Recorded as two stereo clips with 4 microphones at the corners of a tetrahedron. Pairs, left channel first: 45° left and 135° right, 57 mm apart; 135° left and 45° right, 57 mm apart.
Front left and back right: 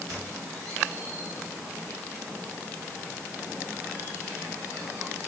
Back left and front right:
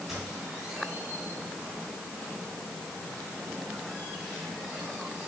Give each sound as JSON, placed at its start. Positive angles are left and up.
{"t": 0.1, "sound": "a squeak", "azimuth_deg": -125, "distance_m": 3.0}